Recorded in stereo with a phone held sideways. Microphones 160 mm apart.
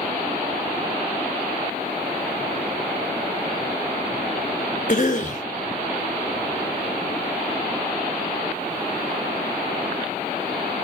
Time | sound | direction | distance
4.9 | a cough | 50° left (ahead or behind) | 1.1 m